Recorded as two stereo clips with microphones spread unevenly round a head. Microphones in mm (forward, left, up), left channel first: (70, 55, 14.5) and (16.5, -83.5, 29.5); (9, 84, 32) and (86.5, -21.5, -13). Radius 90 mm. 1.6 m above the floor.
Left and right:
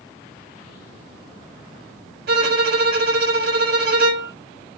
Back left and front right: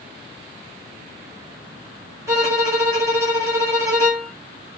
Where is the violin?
135° right, 0.9 m.